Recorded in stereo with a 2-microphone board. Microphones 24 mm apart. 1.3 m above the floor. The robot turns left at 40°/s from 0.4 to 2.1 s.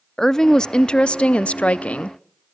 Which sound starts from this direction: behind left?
A woman speaking, at 0.2 s.